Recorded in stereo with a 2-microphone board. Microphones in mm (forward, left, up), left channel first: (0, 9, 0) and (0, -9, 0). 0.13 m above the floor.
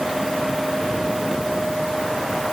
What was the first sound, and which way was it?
Only background noise.